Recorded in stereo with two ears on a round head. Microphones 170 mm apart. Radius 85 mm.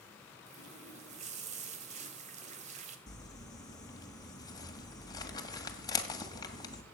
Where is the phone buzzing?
I don't hear a phone buzzing.